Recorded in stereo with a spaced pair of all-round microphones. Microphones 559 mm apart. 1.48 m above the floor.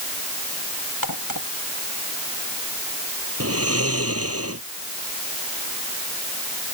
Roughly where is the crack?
Left.